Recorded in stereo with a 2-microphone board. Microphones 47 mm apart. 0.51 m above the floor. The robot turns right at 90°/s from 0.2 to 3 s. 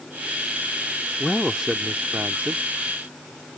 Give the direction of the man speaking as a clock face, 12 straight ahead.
6 o'clock.